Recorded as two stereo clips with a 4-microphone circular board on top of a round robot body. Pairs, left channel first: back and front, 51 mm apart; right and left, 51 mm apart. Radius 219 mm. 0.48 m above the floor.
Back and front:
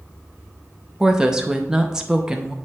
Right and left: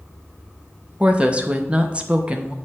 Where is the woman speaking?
60° left, 1.0 m.